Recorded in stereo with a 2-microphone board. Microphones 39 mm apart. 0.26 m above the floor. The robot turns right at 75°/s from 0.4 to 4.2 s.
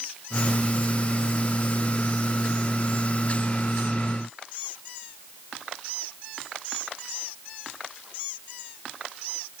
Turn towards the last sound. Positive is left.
No sound to turn to.